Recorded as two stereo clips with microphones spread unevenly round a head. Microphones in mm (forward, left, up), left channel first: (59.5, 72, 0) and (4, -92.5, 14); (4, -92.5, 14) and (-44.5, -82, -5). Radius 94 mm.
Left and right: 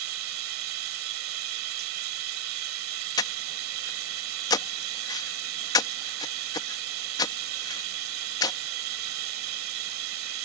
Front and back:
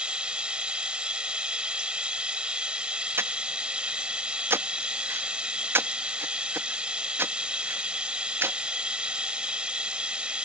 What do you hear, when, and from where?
0.0 s running water: 115° right
3.2 s breathing: 140° left